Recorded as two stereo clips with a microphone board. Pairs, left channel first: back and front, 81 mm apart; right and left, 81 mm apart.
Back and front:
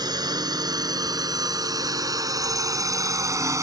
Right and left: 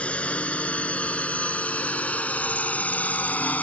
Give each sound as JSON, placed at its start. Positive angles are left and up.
{"t": 0.0, "sound": "a drone", "azimuth_deg": -15}